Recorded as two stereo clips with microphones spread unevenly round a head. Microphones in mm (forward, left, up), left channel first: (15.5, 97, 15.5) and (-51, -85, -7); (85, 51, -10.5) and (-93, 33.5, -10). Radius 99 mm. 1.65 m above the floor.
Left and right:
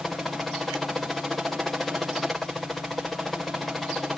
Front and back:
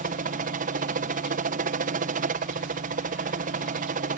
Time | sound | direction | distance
0.0 | a helicopter | 165° left | ?